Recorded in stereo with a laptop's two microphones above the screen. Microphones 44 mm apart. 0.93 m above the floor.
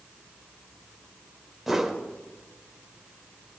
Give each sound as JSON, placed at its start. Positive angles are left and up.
{"t": 1.7, "sound": "a whoosh", "side_deg": -5, "distance_m": 1.7}